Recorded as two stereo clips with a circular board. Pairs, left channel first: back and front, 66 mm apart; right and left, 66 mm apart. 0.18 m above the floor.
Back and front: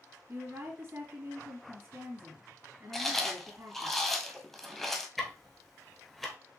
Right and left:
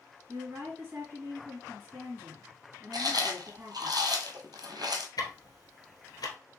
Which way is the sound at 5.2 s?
95° right.